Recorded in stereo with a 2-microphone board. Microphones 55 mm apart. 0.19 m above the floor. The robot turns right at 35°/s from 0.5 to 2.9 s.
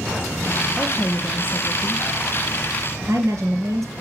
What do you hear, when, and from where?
0.8 s a woman speaking: 170° right, 4 m; by 3.9 s 95° right, 4 m